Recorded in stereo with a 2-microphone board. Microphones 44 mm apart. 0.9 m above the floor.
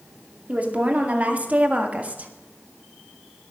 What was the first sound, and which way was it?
A woman speaking, 35° right (ahead or behind).